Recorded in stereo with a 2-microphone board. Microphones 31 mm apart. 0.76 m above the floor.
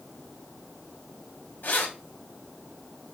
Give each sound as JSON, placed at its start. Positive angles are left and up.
{"t": 1.6, "sound": "keys jangling", "side_deg": 70, "distance_m": 1.3}